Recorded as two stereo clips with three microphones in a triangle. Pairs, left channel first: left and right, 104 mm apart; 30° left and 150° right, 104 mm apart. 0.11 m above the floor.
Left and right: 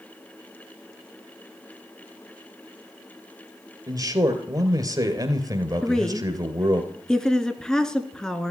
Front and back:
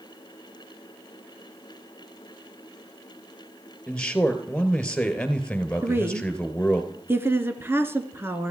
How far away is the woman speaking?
About 1.3 m.